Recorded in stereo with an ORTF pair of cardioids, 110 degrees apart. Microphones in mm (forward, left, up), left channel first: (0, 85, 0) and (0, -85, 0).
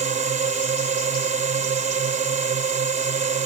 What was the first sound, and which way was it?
A drone, 45° right.